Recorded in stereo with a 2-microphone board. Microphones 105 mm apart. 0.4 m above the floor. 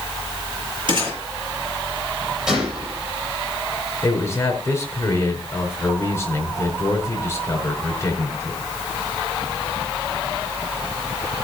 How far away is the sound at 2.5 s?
About 8 m.